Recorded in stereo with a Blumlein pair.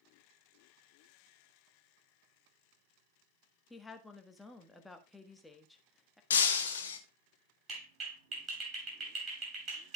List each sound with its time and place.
3.7 s a woman speaking: 5° left, 1.5 m
6.3 s breaking glass: 65° left, 1.5 m
7.7 s a clap: 25° right, 8.5 m